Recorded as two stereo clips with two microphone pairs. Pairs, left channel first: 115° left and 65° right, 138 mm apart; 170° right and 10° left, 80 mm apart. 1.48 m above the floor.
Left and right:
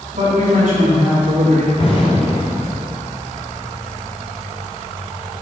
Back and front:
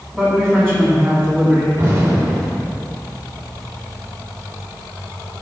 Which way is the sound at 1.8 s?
65° left.